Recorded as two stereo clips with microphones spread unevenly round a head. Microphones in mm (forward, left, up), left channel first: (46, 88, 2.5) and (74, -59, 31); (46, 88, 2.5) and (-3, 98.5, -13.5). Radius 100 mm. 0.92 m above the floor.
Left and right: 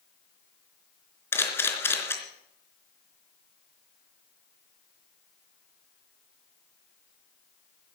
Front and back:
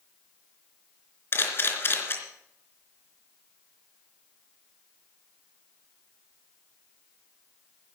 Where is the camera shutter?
25° left, 3.5 m.